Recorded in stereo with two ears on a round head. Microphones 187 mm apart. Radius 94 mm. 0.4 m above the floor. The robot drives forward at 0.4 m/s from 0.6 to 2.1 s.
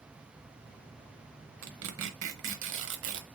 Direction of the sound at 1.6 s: 75° right (ahead or behind).